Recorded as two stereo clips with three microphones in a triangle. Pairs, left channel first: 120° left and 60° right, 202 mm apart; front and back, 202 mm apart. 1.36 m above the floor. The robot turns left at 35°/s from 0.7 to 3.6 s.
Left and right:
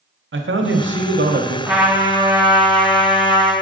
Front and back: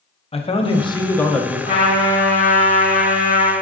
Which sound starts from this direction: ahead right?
A man speaking, at 0.3 s.